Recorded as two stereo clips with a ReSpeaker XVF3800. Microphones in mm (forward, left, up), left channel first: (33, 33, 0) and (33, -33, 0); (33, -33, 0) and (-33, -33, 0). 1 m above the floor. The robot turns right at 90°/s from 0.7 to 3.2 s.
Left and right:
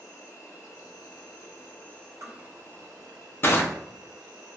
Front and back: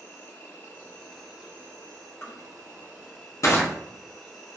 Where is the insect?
50° left, 0.9 m; by 4.6 s 85° right, 0.9 m.